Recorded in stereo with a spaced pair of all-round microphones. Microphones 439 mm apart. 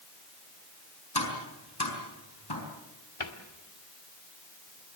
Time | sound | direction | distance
1.1 | tapping | 60° left (ahead or behind) | 5 m
3.2 | a cupboard door | 80° left | 2 m